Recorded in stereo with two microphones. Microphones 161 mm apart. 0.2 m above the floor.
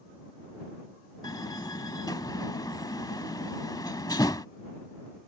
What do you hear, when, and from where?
1.2 s a door slam: 25° left (ahead or behind)